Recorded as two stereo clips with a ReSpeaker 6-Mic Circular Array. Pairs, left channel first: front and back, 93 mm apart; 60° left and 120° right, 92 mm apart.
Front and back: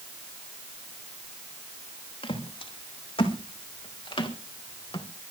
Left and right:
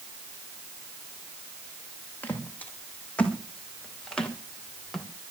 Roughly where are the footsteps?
Ahead.